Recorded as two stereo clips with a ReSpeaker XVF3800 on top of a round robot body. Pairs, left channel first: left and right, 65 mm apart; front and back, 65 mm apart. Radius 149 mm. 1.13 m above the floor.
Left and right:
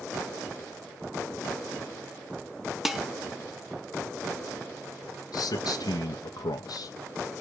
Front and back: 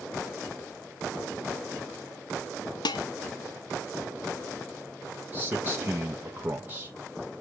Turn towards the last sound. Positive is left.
turn(degrees=115)